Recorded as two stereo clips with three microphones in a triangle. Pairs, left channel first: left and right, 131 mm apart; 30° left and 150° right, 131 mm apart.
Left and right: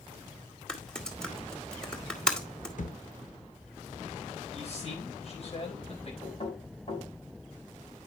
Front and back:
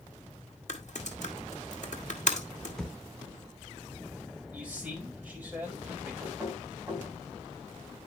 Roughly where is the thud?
Behind left.